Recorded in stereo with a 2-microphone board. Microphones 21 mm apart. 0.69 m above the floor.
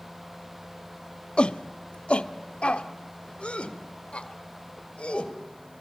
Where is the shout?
60° left (ahead or behind), 0.8 m; by 5.3 s 65° left (ahead or behind), 2.5 m.